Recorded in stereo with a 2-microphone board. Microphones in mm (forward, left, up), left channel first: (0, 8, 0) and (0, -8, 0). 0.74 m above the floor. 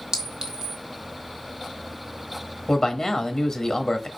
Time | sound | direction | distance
0.1 | a clink | 45° right (ahead or behind) | 1.3 m
2.7 | a man speaking | 35° left (ahead or behind) | 1.0 m